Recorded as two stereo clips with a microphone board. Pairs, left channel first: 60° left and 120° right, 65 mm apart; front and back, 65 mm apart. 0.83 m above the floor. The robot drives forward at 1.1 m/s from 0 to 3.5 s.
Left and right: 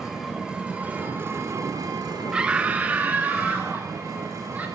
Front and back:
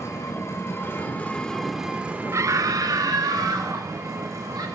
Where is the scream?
170° left, 0.6 m; by 4.7 s 175° left, 1.8 m.